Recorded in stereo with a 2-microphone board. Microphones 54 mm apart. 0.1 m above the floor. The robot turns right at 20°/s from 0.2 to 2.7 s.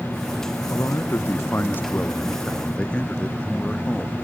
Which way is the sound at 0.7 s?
115° left.